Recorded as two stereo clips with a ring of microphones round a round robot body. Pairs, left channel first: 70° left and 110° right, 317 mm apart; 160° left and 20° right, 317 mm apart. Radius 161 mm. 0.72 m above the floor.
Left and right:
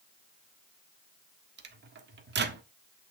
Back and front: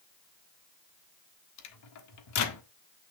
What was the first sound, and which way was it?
A microwave, 170° right.